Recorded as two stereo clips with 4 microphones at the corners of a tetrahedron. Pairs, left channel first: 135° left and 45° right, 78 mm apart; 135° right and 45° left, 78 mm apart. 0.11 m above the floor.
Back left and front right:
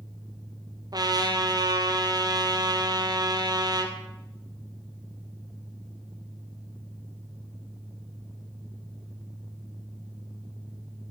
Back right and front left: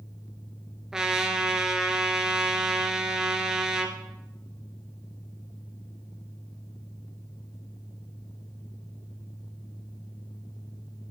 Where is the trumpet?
40° right, 1.5 m.